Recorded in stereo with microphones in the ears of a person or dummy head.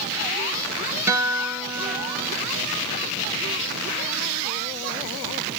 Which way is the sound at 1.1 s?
15° right (ahead or behind).